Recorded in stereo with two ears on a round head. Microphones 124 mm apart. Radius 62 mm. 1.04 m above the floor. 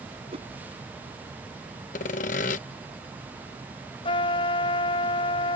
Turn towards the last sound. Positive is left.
turn(degrees=40)  # may be behind; listen again after turning